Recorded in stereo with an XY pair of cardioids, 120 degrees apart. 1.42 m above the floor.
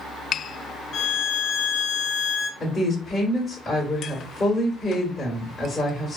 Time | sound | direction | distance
0.9 | a violin | 55° left | 0.6 m
2.6 | a woman speaking | 30° left | 1.1 m